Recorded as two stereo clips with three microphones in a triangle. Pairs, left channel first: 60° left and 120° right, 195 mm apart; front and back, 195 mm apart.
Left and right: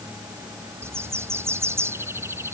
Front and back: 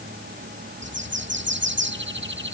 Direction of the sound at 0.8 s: 165° left.